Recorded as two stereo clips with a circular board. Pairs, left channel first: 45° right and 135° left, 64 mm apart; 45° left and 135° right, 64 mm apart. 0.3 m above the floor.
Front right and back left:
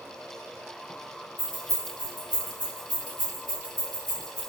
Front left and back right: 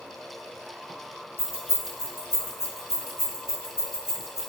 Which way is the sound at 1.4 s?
15° left.